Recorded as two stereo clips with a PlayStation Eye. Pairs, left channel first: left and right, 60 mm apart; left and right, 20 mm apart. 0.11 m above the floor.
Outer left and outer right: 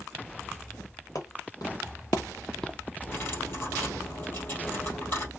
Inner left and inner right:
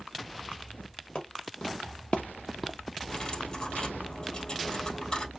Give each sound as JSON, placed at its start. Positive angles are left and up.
{"t": 1.1, "sound": "footsteps", "side_deg": 75, "distance_m": 1.8}
{"t": 3.1, "sound": "cutlery clinking", "side_deg": 40, "distance_m": 2.0}